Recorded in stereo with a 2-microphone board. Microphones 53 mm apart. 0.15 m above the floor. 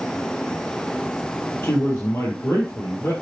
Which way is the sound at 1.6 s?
45° left (ahead or behind).